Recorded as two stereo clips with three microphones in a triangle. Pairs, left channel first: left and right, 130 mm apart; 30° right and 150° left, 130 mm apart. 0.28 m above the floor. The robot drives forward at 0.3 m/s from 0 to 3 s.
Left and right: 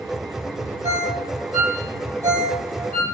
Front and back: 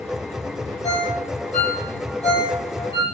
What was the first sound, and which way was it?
A ringtone, 60° right.